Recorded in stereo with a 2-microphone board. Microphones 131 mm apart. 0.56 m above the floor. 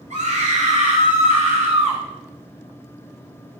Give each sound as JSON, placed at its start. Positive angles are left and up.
{"t": 0.1, "sound": "a scream", "side_deg": -70, "distance_m": 3.0}